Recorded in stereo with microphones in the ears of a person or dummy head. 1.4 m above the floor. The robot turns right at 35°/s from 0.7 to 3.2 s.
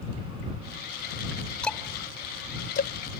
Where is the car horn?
No car horn in this recording.